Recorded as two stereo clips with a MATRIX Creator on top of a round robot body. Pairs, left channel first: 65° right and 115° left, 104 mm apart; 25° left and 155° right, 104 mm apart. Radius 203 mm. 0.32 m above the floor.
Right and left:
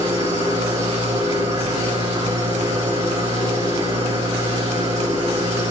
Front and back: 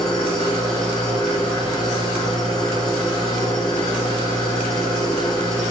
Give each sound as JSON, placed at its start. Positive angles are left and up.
{"t": 0.0, "sound": "an engine running", "azimuth_deg": 110, "distance_m": 8.0}